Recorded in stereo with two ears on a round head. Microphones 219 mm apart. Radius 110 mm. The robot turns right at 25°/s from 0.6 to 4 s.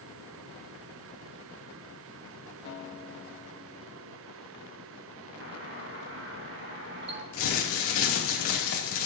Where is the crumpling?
60° left (ahead or behind), 2.5 m.